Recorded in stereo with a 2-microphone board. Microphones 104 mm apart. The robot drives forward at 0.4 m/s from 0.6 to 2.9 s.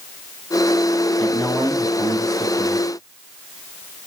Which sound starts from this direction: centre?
A man speaking, at 1.2 s.